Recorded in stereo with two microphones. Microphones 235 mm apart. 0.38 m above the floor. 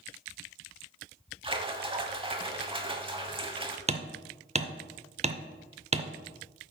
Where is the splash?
20° right (ahead or behind), 0.8 m.